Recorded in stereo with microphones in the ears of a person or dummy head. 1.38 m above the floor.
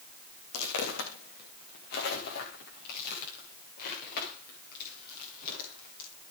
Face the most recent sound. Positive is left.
turn(degrees=50)  # may be behind; listen again after turning